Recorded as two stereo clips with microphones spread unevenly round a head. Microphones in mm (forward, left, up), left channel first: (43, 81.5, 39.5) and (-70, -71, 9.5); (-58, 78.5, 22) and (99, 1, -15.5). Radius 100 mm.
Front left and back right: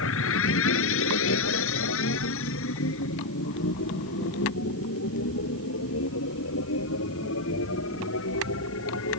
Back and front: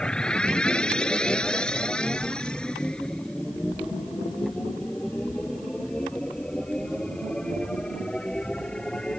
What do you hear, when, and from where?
0.0 s a machine running: 70° left